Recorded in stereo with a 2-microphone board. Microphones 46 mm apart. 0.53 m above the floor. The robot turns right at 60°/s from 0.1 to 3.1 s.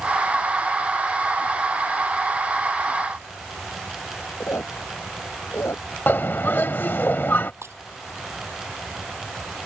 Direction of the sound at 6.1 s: 50° left (ahead or behind).